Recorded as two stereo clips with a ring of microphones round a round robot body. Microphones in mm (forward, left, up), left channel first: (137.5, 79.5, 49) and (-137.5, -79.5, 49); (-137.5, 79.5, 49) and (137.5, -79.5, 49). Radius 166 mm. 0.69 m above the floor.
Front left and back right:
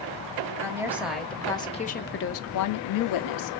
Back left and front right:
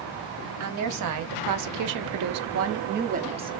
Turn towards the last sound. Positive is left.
turn(degrees=45)